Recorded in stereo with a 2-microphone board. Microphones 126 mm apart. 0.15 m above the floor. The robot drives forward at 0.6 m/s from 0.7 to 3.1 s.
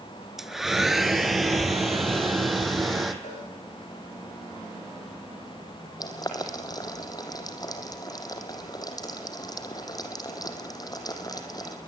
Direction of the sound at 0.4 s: Centre (ahead or behind).